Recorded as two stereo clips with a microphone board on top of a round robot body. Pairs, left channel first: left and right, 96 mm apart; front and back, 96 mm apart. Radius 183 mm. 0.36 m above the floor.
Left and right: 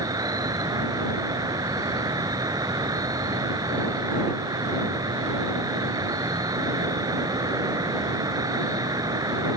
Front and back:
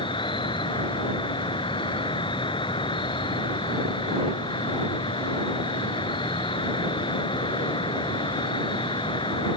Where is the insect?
35° right.